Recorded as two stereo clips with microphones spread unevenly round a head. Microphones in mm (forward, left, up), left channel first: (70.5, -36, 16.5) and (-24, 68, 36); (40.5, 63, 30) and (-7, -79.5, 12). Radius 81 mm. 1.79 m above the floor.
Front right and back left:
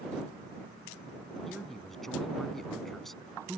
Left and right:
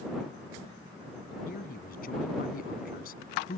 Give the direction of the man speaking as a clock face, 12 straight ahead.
11 o'clock.